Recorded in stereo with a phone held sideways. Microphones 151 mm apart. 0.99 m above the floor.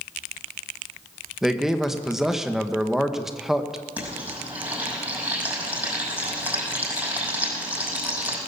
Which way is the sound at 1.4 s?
5° right (ahead or behind).